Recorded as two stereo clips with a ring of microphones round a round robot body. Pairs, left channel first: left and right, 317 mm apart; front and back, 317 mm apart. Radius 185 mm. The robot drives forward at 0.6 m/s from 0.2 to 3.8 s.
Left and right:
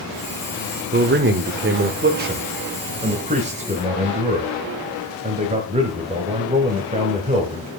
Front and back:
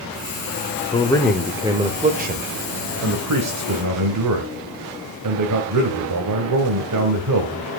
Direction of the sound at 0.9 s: 60° right.